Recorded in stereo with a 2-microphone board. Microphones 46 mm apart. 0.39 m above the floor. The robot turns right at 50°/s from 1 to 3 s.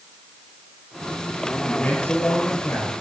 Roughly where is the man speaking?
Ahead left.